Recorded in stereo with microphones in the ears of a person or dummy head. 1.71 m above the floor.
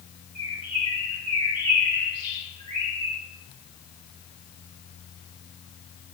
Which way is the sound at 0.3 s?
50° right (ahead or behind).